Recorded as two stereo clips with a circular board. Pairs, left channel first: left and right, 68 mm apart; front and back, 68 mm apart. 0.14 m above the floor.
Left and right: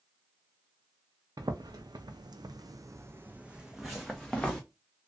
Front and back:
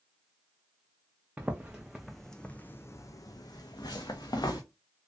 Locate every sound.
1.4 s footsteps: 110° right, 0.9 m; by 4.6 s 10° left, 1.0 m